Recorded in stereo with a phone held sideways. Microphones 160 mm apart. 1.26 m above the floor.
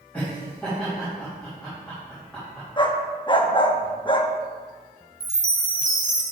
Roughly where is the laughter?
Centre.